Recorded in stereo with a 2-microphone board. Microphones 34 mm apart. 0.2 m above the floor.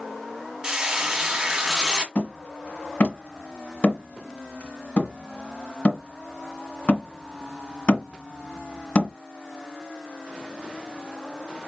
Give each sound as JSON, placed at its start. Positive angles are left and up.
{"t": 0.6, "sound": "frying", "side_deg": -20, "distance_m": 1.2}
{"t": 2.1, "sound": "hammering", "side_deg": 45, "distance_m": 1.8}